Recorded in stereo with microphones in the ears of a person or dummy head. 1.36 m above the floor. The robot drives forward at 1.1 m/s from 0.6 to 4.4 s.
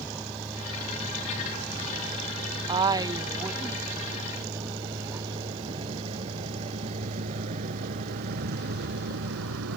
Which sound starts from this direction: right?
A woman speaking, at 2.7 s.